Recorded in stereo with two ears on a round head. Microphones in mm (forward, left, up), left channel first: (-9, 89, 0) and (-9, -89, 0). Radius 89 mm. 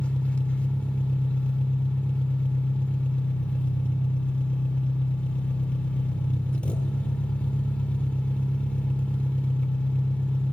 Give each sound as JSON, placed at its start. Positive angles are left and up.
{"t": 0.0, "sound": "an engine running", "side_deg": 5, "distance_m": 1.3}